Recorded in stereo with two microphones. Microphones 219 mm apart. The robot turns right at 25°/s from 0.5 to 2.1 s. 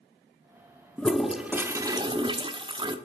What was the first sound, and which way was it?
A toilet flushing, 5° left (ahead or behind).